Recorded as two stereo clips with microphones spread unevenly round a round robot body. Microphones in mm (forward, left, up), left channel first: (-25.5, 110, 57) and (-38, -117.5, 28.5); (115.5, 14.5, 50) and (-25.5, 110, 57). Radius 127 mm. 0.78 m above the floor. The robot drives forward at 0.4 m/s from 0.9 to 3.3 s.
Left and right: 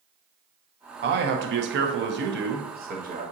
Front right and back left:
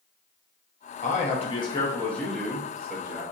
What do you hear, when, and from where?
1.0 s a man speaking: 65° right, 0.7 m; by 3.2 s 140° right, 0.9 m